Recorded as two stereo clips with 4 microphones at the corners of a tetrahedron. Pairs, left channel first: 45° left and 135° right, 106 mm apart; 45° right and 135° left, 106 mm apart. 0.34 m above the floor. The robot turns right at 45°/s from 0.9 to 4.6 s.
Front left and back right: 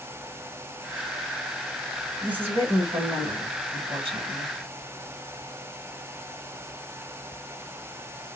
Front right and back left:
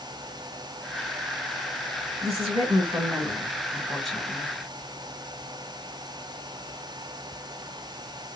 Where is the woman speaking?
145° left, 2.5 m; by 4.5 s 110° right, 2.5 m.